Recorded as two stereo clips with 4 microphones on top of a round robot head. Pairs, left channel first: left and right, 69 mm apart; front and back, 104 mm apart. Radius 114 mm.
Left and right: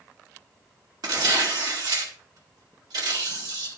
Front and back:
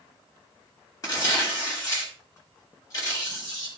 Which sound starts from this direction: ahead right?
Tearing paper, at 1.0 s.